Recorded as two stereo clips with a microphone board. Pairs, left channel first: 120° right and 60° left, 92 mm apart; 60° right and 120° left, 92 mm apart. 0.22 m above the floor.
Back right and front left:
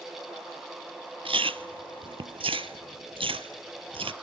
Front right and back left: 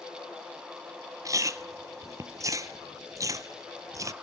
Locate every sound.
1.2 s chewing: 65° left, 0.7 m